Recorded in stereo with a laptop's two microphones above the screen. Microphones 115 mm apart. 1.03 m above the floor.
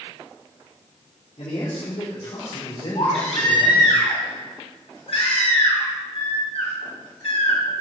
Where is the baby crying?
65° left (ahead or behind), 3.5 m.